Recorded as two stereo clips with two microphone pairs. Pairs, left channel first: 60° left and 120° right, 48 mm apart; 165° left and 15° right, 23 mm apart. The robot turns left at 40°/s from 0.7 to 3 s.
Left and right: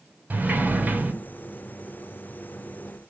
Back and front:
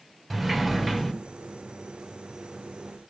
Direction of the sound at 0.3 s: 110° right.